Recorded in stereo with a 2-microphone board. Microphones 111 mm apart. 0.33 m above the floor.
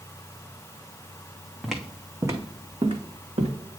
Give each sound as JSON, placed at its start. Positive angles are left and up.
{"t": 1.6, "sound": "footsteps", "side_deg": 0, "distance_m": 1.1}